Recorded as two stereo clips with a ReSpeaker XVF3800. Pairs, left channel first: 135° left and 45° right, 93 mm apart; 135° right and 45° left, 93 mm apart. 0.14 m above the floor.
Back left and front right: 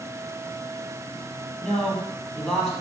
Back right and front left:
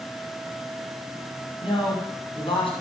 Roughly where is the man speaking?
Behind right.